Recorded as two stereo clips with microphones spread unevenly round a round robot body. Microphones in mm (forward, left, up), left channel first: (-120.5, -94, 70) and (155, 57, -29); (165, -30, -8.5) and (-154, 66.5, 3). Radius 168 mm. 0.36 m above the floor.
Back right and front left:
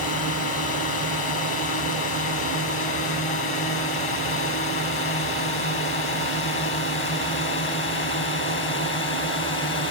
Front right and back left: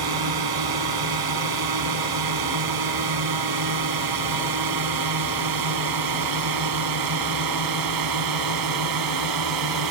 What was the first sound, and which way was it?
A drone, 155° left.